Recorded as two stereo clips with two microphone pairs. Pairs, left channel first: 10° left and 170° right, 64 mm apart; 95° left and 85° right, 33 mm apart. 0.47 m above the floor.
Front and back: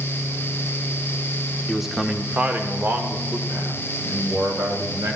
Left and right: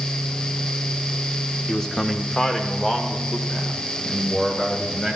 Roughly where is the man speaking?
Left.